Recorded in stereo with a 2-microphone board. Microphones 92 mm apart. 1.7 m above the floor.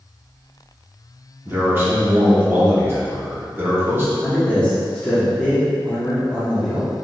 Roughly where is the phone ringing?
No phone ringing in this recording.